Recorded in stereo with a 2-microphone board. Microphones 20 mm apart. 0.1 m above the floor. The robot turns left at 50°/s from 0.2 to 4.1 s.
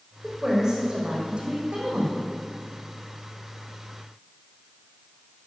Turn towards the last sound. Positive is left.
turn(degrees=155)